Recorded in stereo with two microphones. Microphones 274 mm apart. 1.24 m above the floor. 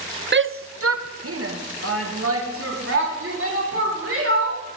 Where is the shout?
40° right (ahead or behind), 0.6 m; by 4.6 s 50° right (ahead or behind), 5 m.